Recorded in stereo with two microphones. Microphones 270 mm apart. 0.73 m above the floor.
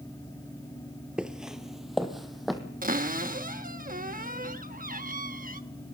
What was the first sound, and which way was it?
Footsteps, 5° right (ahead or behind).